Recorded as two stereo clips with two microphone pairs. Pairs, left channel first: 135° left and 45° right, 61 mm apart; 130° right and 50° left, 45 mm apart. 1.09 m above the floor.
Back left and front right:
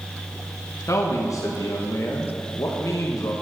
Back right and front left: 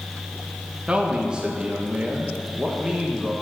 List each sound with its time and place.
0.9 s a man speaking: 125° left, 1.3 m